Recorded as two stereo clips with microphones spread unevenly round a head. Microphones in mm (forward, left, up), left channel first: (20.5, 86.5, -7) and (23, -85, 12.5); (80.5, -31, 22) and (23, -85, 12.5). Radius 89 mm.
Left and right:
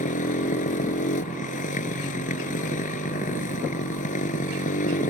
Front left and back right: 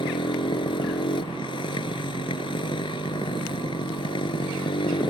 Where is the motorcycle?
45° left.